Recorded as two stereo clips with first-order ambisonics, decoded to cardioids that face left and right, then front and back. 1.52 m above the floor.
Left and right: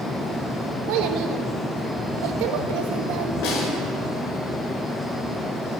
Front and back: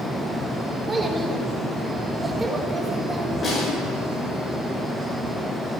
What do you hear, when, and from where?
0.9 s a child speaking: 105° right, 1.6 m
3.4 s a snare drum: 65° left, 6 m